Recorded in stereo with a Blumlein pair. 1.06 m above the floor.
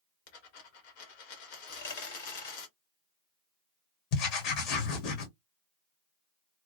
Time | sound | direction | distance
0.3 | a dropped coin | 50° left | 1.3 m
1.7 | a dropped coin | 60° left | 1.8 m
4.1 | writing | 40° left | 1.2 m